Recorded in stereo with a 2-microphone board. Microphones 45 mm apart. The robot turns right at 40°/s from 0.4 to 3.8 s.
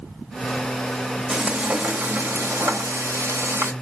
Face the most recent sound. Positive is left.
turn(degrees=-65)